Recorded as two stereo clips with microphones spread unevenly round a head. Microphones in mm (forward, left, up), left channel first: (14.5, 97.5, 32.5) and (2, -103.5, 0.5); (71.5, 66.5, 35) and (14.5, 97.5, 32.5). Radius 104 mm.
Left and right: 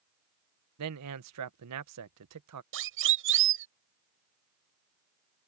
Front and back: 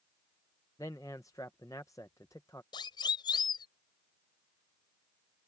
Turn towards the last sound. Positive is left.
turn(degrees=-65)